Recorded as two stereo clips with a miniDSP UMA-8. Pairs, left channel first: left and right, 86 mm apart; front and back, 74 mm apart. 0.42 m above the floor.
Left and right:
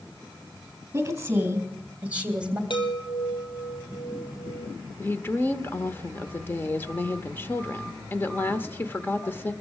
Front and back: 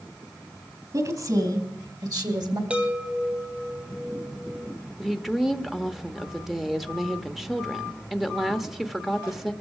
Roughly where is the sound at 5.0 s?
Left.